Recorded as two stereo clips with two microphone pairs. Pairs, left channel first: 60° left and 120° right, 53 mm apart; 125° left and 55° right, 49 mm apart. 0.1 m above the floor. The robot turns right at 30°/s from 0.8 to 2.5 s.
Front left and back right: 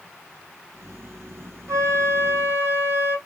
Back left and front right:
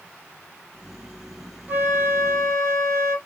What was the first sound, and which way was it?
A flute, 105° right.